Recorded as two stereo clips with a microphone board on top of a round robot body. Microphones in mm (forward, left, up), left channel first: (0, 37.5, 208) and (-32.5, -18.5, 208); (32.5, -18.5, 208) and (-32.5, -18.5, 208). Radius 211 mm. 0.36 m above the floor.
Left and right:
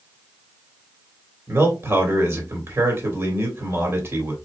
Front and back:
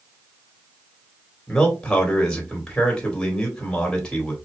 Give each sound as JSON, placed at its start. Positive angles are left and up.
{"t": 1.5, "sound": "a man speaking", "azimuth_deg": -80, "distance_m": 2.5}